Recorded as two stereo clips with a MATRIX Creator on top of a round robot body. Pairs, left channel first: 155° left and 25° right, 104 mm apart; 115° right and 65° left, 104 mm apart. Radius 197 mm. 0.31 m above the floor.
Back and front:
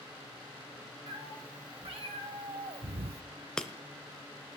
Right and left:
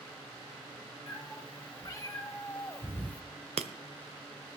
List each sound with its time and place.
1.1 s a cat meowing: 55° right, 2.5 m; by 3.2 s 35° right, 0.5 m
3.6 s breaking glass: 75° left, 0.8 m